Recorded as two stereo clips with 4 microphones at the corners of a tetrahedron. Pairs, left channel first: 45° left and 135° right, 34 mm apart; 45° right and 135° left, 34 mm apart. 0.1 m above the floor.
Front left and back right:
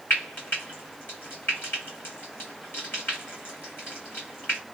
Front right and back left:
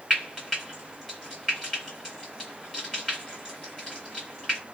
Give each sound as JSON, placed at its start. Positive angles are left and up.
{"t": 0.1, "sound": "frying", "azimuth_deg": 40, "distance_m": 1.6}